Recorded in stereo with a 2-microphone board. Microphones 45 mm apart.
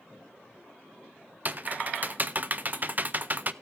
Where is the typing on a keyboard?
40° right (ahead or behind), 0.6 m.